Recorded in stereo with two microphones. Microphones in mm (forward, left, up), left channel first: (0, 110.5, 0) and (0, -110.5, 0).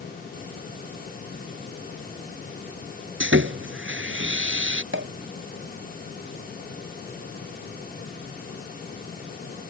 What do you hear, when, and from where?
3.2 s sawing: 65° right (ahead or behind)
4.9 s a pop: 60° right (ahead or behind)